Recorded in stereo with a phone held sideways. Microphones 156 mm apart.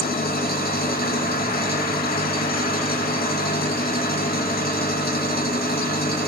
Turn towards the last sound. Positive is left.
turn(degrees=80)